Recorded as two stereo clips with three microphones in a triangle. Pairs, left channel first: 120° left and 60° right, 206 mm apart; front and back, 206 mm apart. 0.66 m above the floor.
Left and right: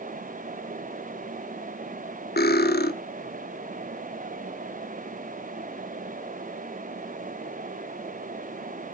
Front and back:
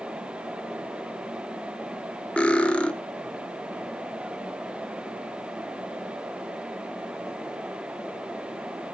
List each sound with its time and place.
2.4 s cutlery clinking: 85° left, 0.7 m